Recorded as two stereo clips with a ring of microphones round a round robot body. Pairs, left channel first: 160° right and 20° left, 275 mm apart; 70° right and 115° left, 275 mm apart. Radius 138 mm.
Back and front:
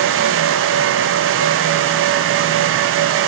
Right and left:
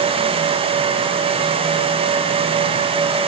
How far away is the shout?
No shout in this recording.